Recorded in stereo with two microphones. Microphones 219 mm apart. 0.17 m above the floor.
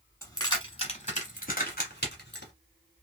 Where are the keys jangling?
15° left (ahead or behind), 1.2 m; by 2.5 s 55° left (ahead or behind), 1.5 m.